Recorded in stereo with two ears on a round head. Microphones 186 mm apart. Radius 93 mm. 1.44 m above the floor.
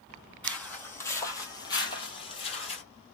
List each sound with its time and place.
0.4 s footsteps: 5° left (ahead or behind), 1.8 m; by 2.8 s 30° left (ahead or behind), 1.6 m